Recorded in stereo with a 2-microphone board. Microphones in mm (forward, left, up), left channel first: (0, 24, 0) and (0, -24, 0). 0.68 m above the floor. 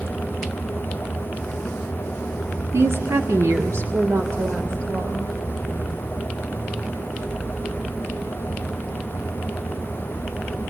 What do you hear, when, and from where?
2.7 s a woman speaking: 60° right (ahead or behind), 1.8 m